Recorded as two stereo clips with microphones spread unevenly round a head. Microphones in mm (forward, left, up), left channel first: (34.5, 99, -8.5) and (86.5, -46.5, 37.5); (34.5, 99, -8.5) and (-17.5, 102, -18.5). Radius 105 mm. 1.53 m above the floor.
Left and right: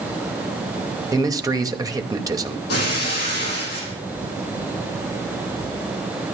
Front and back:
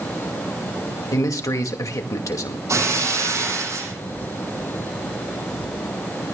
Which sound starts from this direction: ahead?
A man speaking, at 1.1 s.